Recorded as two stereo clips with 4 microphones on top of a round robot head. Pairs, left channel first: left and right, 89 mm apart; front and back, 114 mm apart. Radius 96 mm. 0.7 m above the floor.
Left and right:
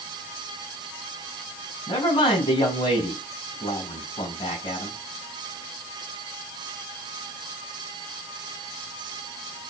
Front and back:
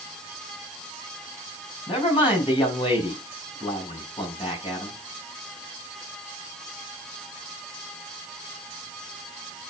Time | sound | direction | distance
1.9 | a man speaking | 45° left | 6.5 m